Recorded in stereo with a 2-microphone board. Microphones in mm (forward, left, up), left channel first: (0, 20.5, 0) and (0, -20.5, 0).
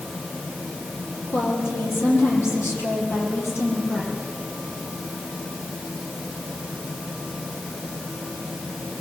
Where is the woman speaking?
70° left (ahead or behind), 5 m; by 4.1 s 75° left (ahead or behind), 7.5 m.